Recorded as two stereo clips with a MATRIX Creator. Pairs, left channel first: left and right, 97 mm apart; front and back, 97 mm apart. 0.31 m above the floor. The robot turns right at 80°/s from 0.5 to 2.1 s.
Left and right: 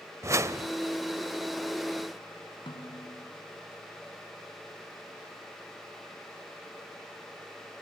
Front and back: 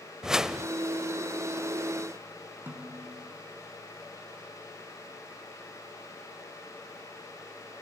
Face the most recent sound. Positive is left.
turn(degrees=110)